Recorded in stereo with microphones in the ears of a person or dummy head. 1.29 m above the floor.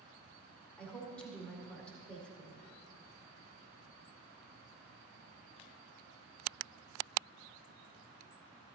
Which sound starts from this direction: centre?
A woman speaking, at 0.8 s.